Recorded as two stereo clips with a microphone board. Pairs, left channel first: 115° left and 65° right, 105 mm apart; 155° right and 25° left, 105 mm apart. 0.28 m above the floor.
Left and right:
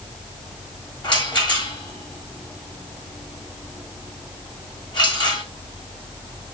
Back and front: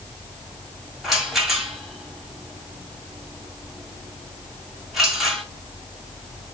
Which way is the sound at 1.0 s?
110° left.